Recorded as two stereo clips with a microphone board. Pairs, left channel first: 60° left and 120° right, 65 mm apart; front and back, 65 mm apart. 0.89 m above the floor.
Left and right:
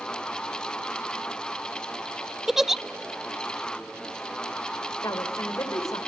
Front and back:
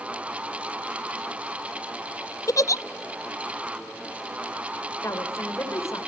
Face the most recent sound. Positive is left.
turn(degrees=40)